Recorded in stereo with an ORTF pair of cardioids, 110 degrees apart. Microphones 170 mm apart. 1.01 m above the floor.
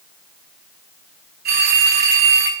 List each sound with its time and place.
1.4 s a phone ringing: 65° right, 5 m